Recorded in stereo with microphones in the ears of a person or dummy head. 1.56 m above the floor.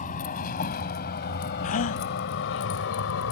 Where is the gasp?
40° left (ahead or behind).